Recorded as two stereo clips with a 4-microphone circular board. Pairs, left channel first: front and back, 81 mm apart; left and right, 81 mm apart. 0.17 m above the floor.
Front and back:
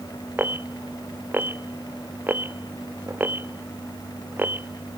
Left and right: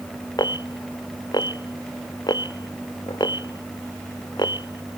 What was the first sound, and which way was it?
An alarm, 115° left.